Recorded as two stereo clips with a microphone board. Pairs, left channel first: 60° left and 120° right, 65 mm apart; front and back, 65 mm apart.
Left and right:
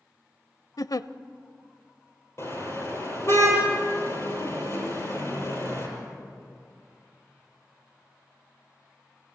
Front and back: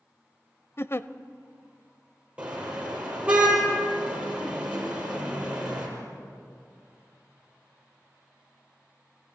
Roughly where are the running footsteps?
I don't hear running footsteps.